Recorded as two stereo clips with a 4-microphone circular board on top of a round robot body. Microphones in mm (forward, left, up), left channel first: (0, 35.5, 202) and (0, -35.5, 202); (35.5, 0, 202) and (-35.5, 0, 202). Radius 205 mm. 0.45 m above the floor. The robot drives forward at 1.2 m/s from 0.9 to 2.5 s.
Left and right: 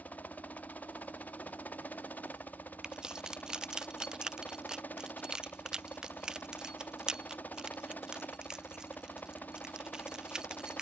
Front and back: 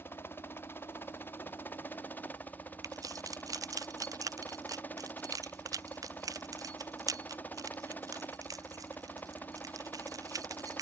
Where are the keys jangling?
170° right.